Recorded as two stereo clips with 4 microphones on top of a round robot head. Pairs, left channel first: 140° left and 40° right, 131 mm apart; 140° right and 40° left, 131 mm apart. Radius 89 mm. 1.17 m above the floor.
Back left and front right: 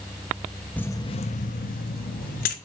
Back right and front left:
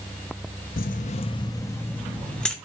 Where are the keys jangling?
140° right, 0.6 m; by 2.5 s 135° left, 1.6 m.